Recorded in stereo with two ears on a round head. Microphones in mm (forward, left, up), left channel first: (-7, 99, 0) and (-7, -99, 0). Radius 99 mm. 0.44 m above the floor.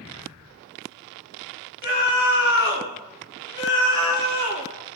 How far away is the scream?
About 4.5 m.